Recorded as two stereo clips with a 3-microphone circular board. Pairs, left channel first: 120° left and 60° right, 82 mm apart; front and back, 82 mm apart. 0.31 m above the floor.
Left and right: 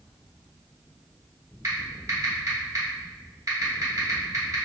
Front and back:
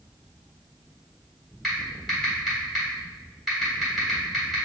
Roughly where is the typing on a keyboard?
Right.